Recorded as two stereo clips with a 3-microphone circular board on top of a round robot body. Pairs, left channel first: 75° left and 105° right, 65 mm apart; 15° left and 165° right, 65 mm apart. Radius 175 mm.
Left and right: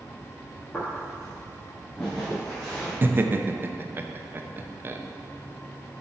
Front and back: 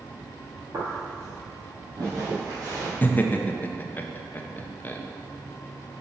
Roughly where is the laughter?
Ahead right.